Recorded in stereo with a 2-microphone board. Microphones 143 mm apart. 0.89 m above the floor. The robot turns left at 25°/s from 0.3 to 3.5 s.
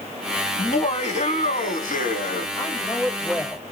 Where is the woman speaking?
25° left (ahead or behind), 2.0 m; by 3.7 s 5° left (ahead or behind), 2.0 m.